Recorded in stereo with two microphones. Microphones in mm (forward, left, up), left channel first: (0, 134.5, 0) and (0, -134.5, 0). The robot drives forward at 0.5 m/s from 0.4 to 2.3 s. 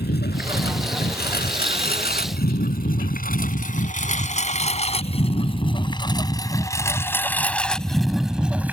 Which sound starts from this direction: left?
A lawn mower, at 0.0 s.